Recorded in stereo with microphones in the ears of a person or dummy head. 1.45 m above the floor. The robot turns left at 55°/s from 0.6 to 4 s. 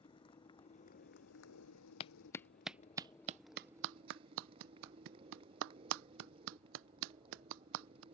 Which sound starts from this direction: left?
A clap, at 2.0 s.